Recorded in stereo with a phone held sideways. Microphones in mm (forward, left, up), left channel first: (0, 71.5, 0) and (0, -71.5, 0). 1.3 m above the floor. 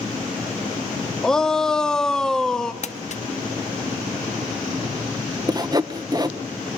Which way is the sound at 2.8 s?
55° left (ahead or behind).